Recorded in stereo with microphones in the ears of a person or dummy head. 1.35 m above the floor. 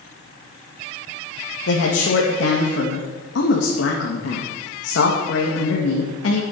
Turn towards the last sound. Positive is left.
turn(degrees=75)  # may be behind; listen again after turning